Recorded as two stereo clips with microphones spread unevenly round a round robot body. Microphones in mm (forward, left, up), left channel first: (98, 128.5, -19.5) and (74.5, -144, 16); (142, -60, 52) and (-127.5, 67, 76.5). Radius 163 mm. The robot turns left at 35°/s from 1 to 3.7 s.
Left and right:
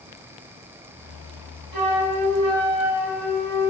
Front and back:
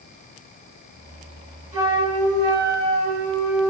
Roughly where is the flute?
Behind right.